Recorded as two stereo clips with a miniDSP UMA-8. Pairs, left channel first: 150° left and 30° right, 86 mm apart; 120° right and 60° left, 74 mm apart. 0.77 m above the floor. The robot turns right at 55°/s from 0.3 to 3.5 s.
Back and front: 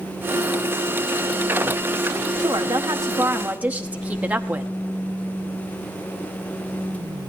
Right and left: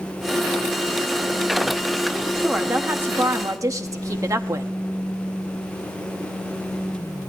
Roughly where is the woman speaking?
Ahead right.